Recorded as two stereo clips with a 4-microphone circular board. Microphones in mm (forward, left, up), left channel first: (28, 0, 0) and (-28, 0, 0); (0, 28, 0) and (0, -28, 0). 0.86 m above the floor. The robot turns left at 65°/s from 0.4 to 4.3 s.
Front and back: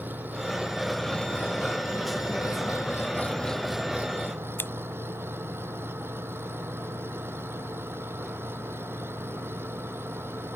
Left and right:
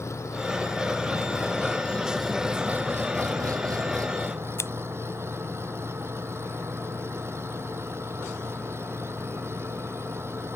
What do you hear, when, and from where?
0.0 s an engine running: 125° left; by 10.6 s 130° right
4.6 s scissors: 55° left